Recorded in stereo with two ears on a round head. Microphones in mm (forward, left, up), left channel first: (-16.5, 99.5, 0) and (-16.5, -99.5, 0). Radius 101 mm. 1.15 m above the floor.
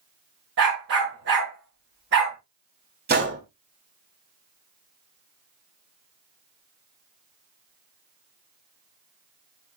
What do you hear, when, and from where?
0.6 s a dog barking: 60° right (ahead or behind), 6 m
3.1 s a gunshot: 50° right (ahead or behind), 3 m